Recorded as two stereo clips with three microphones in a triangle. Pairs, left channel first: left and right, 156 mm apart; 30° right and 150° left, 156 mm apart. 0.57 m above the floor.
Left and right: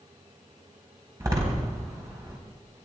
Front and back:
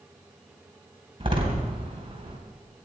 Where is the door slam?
160° right, 3 m.